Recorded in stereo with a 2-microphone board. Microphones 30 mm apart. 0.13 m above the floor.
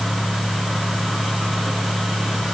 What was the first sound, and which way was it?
Only background noise.